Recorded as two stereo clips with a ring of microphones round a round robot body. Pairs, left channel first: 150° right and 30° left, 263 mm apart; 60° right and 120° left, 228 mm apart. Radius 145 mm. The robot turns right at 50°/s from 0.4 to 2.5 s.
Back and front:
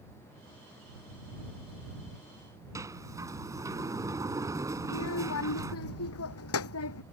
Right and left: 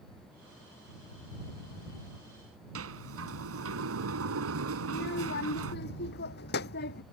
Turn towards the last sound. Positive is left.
turn(degrees=-115)